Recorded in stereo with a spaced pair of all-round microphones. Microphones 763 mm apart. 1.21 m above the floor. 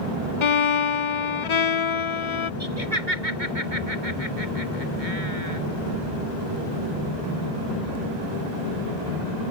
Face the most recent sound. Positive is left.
turn(degrees=-70)  # may be behind; listen again after turning